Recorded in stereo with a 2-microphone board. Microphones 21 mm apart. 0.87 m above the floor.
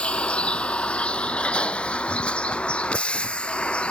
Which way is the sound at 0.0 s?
85° left.